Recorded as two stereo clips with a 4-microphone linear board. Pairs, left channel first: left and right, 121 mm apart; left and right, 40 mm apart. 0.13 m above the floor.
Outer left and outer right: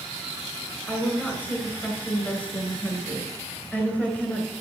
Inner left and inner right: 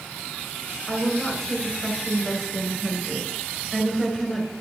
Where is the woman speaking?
15° left (ahead or behind), 1.7 m.